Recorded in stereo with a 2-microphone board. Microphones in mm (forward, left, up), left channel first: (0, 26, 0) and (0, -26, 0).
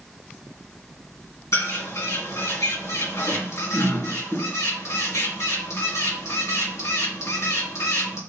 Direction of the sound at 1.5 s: 65° left (ahead or behind).